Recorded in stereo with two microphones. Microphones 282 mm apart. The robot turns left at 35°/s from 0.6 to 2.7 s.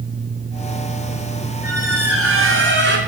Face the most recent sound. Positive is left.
turn(degrees=-125)